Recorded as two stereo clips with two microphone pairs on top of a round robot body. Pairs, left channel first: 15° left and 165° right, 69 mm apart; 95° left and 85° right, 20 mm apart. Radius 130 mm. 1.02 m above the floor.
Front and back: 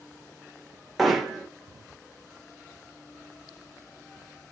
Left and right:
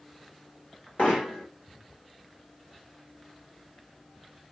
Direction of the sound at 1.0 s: 105° left.